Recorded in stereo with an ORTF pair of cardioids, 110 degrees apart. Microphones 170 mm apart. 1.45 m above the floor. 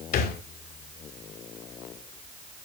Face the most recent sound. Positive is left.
turn(degrees=65)